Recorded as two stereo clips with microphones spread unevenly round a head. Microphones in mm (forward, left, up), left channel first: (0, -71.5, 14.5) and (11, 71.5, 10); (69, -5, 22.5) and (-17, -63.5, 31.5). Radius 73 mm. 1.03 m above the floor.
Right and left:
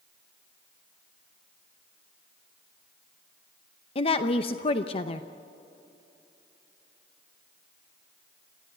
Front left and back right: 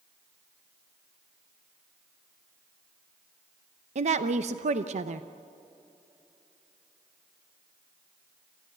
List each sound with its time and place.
4.0 s a woman speaking: 145° right, 0.8 m